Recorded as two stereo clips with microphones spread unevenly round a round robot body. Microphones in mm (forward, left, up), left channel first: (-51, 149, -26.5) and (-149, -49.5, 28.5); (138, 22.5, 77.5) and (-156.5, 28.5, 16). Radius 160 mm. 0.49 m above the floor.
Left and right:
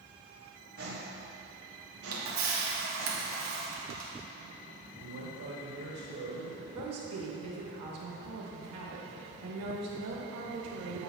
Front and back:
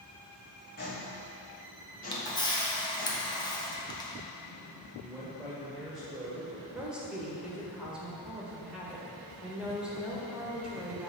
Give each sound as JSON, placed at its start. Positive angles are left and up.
{"t": 0.8, "sound": "footsteps", "azimuth_deg": -60, "distance_m": 2.5}
{"t": 2.1, "sound": "a camera shutter", "azimuth_deg": -85, "distance_m": 1.5}
{"t": 5.0, "sound": "a man speaking", "azimuth_deg": -100, "distance_m": 1.6}
{"t": 6.7, "sound": "a woman speaking", "azimuth_deg": -100, "distance_m": 1.8}